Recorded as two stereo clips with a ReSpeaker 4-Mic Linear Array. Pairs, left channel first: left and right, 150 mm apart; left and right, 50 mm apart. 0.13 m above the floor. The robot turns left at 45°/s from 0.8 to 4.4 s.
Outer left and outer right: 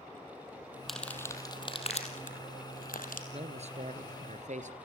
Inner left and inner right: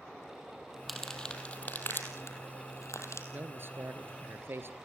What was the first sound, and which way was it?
Crumpling, centre (ahead or behind).